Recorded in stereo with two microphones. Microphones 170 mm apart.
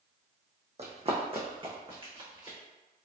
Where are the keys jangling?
I don't hear keys jangling.